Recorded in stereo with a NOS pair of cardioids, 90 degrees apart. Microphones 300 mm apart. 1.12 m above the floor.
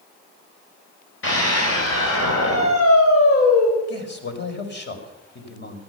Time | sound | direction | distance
1.2 | a scream | 45° left | 5.5 m
3.9 | a man speaking | 35° left | 5 m